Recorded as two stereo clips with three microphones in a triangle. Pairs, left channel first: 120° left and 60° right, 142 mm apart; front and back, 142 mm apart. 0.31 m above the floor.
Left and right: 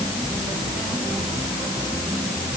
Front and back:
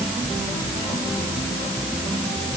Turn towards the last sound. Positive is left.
No sound to turn to.